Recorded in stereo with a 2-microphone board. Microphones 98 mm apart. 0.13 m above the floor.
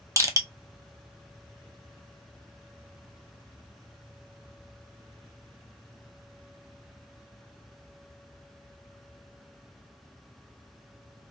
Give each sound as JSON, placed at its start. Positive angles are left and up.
{"t": 0.2, "sound": "crushing", "side_deg": -35, "distance_m": 0.7}